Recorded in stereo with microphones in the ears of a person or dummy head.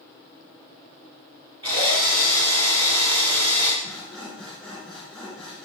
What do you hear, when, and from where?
1.6 s a drill: 30° right (ahead or behind), 2.5 m
3.8 s sawing: 5° right (ahead or behind), 1.9 m